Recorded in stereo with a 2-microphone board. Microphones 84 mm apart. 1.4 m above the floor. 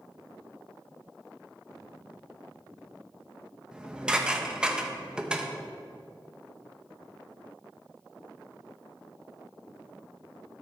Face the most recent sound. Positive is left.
turn(degrees=-10)  # may be behind; listen again after turning